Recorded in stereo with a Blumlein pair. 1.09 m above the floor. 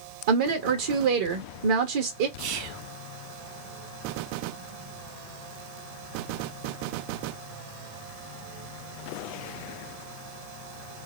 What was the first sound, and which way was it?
A woman speaking, 55° right.